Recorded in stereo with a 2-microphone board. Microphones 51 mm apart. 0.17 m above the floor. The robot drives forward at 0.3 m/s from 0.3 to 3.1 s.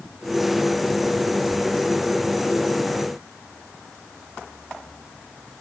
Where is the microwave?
No microwave in this recording.